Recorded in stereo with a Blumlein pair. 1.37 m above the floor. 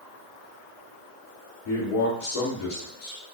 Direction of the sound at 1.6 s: 45° left.